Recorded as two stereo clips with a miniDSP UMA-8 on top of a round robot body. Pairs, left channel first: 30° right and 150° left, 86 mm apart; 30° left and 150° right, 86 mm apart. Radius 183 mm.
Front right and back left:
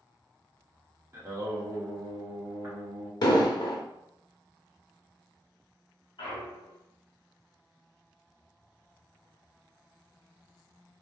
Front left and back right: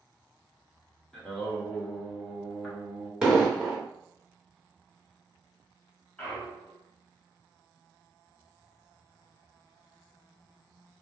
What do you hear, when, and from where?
1.1 s singing: 110° left, 1.6 m
3.2 s an explosion: 70° right, 0.6 m
6.2 s a clunk: 50° right, 0.6 m